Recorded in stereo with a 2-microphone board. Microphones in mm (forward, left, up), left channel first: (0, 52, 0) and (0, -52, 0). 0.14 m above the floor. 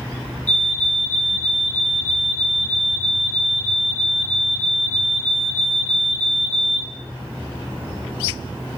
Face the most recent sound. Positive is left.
turn(degrees=15)  # may be behind; listen again after turning